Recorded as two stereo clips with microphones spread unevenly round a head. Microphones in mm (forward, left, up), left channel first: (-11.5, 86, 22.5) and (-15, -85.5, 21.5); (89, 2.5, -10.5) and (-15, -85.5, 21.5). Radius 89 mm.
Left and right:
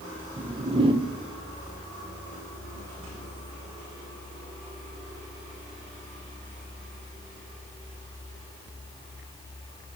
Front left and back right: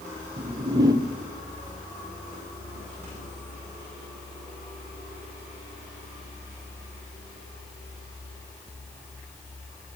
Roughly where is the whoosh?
Behind right.